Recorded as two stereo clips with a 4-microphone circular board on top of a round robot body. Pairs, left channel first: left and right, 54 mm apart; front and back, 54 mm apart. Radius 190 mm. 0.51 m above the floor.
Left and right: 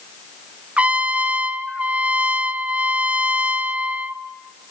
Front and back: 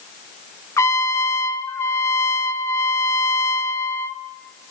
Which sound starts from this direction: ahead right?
A trumpet, at 0.8 s.